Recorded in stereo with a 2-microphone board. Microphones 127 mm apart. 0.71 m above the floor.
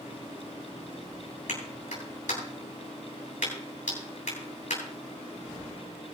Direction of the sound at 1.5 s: 75° left (ahead or behind).